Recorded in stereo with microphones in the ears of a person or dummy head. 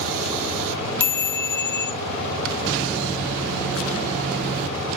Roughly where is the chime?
Centre.